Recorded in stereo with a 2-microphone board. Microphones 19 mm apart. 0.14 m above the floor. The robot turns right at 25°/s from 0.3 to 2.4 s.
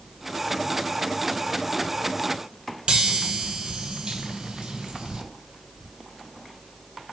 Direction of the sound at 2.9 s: 55° right (ahead or behind).